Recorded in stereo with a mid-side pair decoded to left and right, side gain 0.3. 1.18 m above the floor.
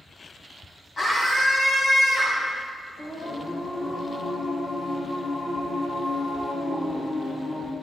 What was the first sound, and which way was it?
A scream, 50° left.